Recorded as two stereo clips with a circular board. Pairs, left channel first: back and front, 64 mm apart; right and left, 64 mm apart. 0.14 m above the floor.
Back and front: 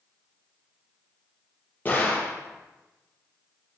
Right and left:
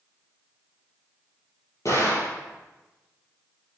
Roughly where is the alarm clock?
I don't hear an alarm clock.